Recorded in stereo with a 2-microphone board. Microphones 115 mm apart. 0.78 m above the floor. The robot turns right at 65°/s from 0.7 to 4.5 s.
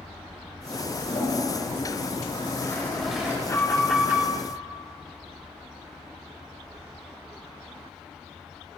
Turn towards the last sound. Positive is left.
turn(degrees=-140)